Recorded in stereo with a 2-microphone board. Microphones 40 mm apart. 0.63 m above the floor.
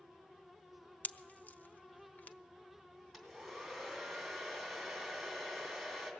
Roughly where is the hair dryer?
Centre.